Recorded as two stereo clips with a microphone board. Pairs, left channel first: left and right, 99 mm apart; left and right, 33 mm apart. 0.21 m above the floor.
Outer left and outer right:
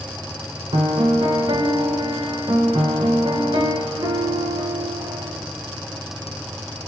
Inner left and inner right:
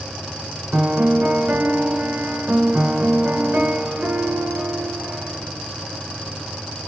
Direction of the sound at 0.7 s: 60° right (ahead or behind).